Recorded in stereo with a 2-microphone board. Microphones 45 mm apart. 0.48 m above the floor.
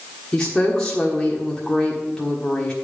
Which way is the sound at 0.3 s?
15° left (ahead or behind).